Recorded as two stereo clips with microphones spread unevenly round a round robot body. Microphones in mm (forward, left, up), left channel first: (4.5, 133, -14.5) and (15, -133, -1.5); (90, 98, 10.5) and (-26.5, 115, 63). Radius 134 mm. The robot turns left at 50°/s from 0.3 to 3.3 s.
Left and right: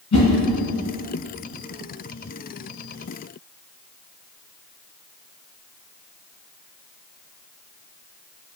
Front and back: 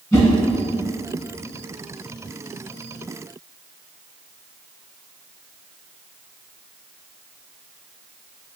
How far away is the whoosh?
About 1.9 m.